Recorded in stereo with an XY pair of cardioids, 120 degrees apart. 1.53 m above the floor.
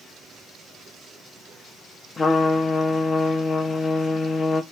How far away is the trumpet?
About 0.8 m.